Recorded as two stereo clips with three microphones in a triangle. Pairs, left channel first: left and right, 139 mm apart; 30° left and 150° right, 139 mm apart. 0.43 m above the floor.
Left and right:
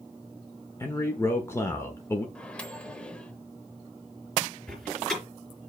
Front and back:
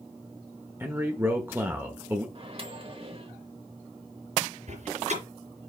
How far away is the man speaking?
About 1.0 m.